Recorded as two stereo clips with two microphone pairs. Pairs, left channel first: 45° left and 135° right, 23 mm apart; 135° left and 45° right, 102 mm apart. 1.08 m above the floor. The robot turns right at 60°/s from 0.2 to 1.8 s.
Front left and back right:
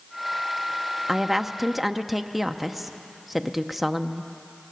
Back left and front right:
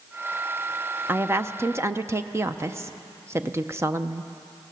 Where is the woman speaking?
85° right, 0.7 m; by 4.3 s 45° right, 0.7 m.